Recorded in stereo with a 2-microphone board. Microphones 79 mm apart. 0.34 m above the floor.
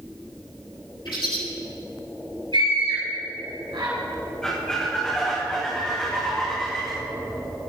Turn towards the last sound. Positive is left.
turn(degrees=10)  # may be behind; listen again after turning